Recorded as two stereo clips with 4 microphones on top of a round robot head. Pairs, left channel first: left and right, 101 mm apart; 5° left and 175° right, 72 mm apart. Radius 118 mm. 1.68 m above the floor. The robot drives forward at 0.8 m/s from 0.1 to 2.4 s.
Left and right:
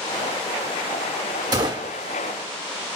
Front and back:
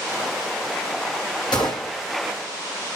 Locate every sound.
1.5 s a gunshot: 45° right, 1.4 m; by 1.9 s 65° right, 1.2 m